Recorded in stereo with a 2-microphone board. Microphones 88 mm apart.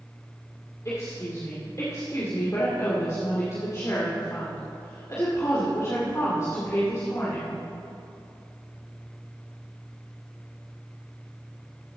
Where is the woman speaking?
35° left (ahead or behind), 2 m.